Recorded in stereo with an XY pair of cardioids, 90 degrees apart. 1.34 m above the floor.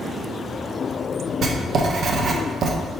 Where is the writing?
60° right, 0.6 m.